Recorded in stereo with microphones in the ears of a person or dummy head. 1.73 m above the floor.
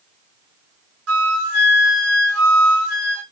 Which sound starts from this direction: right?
A flute, at 1.1 s.